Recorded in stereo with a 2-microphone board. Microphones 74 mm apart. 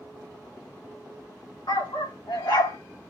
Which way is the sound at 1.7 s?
85° left.